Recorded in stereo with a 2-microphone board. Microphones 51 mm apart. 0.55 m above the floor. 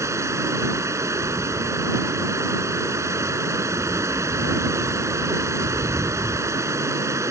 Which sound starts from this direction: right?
Running water, at 0.0 s.